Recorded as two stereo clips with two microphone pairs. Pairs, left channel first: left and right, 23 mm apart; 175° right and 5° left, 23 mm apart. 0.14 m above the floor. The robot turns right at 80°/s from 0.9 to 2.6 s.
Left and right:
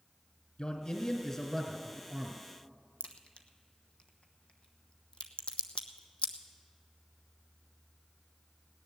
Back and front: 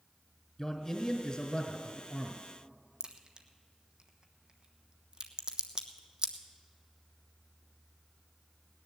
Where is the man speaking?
110° left, 1.8 m; by 2.4 s 130° right, 1.8 m.